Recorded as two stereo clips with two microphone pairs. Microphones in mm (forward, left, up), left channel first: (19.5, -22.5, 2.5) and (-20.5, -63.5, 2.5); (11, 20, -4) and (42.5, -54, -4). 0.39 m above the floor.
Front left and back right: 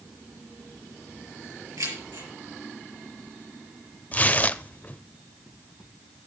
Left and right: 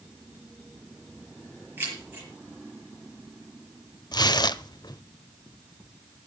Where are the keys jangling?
130° right, 6 m.